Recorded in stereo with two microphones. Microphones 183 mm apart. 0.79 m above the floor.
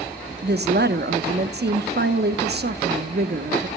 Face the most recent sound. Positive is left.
turn(degrees=-65)  # may be behind; listen again after turning